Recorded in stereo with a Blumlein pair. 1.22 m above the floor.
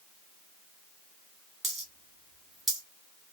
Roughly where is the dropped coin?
Ahead.